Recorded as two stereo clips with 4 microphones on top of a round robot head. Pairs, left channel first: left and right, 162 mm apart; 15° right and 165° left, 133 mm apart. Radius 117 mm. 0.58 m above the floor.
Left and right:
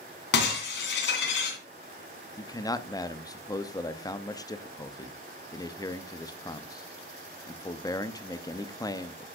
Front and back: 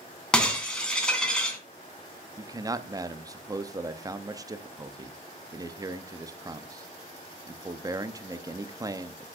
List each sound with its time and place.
0.3 s breaking glass: 70° left, 2.5 m
2.4 s a man speaking: 135° left, 0.7 m